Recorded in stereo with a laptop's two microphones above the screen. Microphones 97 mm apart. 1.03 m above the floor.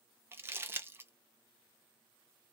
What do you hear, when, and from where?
0.3 s crumpling: 25° right (ahead or behind), 0.5 m